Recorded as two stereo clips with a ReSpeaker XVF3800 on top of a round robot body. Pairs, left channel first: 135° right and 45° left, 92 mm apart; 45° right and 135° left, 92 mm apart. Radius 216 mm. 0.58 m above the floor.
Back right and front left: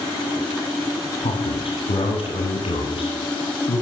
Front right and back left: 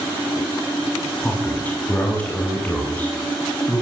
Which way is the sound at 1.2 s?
120° right.